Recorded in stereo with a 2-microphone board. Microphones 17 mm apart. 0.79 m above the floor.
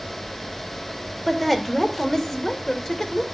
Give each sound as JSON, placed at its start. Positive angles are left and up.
{"t": 1.3, "sound": "a woman speaking", "side_deg": 10, "distance_m": 2.5}